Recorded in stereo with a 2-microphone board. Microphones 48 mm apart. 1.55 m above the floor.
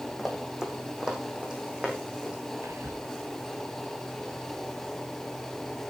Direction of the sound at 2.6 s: 80° right.